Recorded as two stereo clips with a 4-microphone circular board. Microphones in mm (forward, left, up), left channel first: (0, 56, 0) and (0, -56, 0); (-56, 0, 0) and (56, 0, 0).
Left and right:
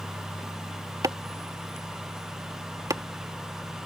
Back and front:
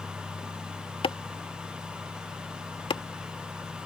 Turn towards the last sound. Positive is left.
turn(degrees=-145)